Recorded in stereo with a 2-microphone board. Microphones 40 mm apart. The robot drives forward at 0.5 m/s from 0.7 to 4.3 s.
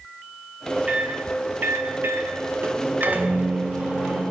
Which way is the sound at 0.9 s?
35° right (ahead or behind).